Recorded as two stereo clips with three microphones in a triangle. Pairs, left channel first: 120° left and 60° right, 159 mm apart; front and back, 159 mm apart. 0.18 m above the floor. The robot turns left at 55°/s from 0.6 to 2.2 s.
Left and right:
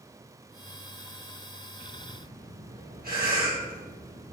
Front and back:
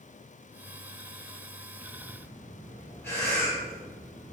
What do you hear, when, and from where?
1.8 s breathing: 50° right, 2.5 m; by 4.3 s 75° right, 2.5 m